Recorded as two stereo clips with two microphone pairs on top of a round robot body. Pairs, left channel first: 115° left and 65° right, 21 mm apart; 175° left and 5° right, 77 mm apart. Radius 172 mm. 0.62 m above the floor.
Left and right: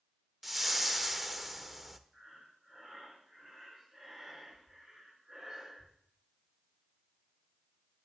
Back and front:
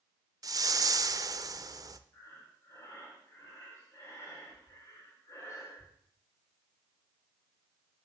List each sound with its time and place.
0.4 s a whoosh: 15° left, 0.9 m
2.1 s breathing: 130° right, 3.5 m